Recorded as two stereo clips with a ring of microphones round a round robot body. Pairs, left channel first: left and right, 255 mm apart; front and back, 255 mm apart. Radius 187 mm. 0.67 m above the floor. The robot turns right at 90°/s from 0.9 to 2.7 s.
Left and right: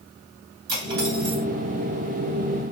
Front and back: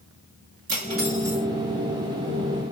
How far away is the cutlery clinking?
About 2 m.